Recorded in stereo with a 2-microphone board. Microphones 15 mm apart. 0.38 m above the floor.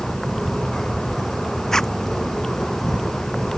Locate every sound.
0.0 s an insect: 20° left (ahead or behind)
1.7 s a zipper: 35° left (ahead or behind)